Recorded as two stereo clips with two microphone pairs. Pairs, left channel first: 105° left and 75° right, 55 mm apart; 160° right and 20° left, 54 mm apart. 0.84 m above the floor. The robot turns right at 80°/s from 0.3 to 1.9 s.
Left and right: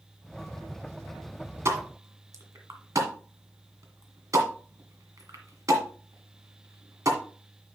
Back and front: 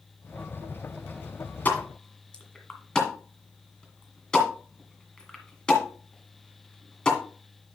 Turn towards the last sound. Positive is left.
turn(degrees=-85)